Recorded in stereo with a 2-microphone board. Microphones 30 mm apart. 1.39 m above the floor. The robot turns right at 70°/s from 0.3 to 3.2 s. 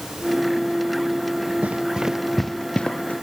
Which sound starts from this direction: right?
Running footsteps, at 1.6 s.